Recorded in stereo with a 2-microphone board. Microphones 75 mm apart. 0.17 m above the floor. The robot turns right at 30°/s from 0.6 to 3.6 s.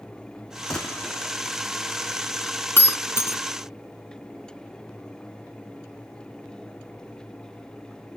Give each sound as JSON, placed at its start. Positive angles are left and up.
{"t": 0.7, "sound": "a gunshot", "side_deg": 10, "distance_m": 1.4}
{"t": 2.8, "sound": "breaking glass", "side_deg": 30, "distance_m": 0.8}